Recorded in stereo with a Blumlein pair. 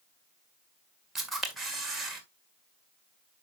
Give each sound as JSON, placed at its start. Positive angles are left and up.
{"t": 1.1, "sound": "a camera shutter", "azimuth_deg": -10, "distance_m": 2.0}